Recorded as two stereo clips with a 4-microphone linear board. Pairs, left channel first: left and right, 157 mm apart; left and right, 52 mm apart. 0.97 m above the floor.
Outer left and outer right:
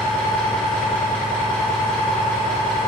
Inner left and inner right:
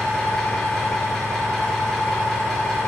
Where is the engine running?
10° left (ahead or behind), 1.2 m.